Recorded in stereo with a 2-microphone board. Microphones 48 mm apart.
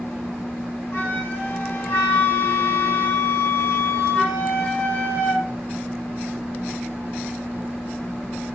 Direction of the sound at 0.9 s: 55° left (ahead or behind).